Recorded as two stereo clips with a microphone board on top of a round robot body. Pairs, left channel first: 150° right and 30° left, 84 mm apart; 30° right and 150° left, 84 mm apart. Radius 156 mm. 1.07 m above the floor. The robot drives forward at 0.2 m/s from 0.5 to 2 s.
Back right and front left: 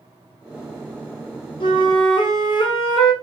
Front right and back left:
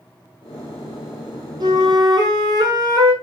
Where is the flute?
170° right, 0.6 m.